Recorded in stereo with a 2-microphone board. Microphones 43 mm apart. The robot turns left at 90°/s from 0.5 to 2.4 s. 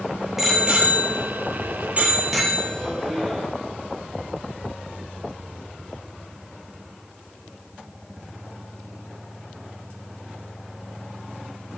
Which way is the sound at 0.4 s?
10° right (ahead or behind).